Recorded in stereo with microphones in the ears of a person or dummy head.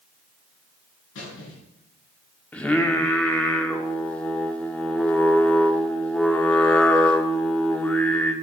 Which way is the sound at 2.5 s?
10° left (ahead or behind).